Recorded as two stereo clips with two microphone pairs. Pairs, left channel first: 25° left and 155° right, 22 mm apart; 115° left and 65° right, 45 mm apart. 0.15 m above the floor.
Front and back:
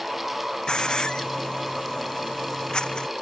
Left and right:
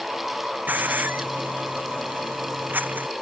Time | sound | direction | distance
0.7 | a hiss | 20° right | ?